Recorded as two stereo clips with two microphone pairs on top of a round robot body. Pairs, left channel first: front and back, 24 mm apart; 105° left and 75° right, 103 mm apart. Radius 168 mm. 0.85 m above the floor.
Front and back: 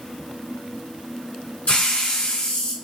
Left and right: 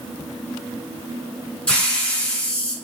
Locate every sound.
1.7 s a hiss: 25° left, 2.5 m